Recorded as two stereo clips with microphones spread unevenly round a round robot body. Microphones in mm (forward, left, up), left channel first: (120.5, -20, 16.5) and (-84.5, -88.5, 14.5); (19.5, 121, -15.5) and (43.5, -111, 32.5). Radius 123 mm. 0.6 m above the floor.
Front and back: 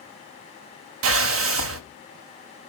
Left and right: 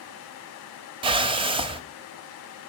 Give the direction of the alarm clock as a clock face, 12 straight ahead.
No alarm clock in this recording.